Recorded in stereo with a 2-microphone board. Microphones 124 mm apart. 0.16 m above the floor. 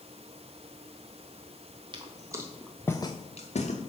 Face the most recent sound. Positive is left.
turn(degrees=75)  # may be behind; listen again after turning